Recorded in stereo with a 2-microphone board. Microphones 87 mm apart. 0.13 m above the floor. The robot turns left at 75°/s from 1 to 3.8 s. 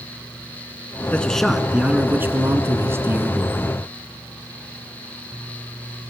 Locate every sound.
1.1 s a man speaking: 15° left (ahead or behind), 1.7 m; by 3.6 s 10° right (ahead or behind), 1.7 m